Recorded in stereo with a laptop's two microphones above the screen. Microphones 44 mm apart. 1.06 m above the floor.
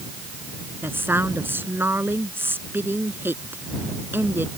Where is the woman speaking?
50° right (ahead or behind).